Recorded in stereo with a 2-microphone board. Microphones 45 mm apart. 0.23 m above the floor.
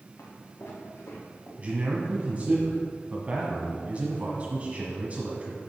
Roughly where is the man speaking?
Right.